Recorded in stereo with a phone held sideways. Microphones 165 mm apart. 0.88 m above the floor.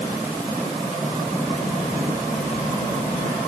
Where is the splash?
I don't hear a splash.